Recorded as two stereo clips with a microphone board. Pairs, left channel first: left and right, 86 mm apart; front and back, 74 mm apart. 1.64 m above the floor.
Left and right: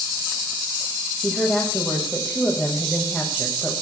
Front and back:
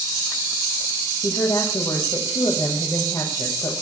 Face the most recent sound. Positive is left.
turn(degrees=0)